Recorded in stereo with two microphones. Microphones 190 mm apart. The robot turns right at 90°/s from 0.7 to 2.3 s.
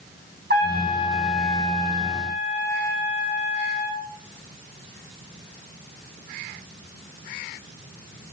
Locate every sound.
0.5 s a trumpet: 60° right, 6.5 m; by 4.0 s 80° left, 6.5 m